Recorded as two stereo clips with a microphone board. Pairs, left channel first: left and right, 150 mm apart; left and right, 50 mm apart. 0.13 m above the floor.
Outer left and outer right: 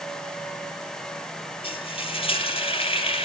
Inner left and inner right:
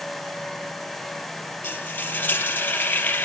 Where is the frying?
40° left (ahead or behind), 3 m.